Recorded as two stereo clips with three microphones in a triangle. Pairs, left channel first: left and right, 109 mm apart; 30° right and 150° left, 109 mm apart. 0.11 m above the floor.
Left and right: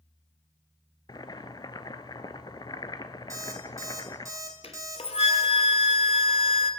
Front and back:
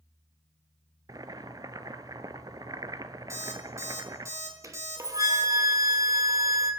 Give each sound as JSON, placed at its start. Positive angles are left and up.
{"t": 1.1, "sound": "boiling", "azimuth_deg": 115, "distance_m": 0.5}
{"t": 3.3, "sound": "an alarm clock", "azimuth_deg": -150, "distance_m": 2.0}
{"t": 4.6, "sound": "a flute", "azimuth_deg": 95, "distance_m": 1.0}